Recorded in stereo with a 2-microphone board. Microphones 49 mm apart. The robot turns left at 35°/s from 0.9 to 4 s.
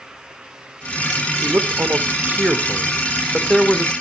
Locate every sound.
1.4 s a man speaking: 100° right, 1.5 m; by 3.9 s 170° left, 1.5 m